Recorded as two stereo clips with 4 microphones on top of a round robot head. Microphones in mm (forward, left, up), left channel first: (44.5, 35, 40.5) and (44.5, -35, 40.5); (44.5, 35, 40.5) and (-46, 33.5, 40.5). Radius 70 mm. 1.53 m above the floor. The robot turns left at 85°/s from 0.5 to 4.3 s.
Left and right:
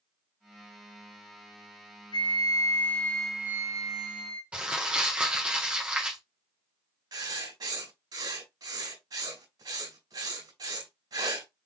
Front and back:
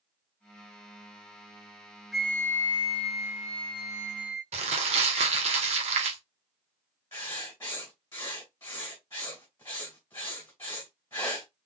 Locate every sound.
2.1 s a flute: 90° left, 1.2 m; by 4.4 s 95° right, 1.2 m
4.5 s crumpling: 170° right, 1.4 m
7.1 s writing: 70° right, 2 m